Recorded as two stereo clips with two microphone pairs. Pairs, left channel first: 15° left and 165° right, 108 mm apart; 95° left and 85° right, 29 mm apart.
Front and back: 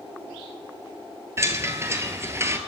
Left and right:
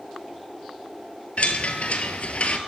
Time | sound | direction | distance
1.4 | a chime | 130° left | 1.0 m